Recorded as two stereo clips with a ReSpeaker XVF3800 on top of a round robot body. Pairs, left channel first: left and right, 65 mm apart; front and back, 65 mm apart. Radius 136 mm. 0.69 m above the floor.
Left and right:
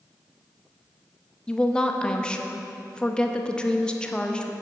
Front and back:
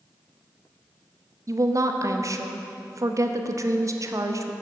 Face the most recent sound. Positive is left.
turn(degrees=165)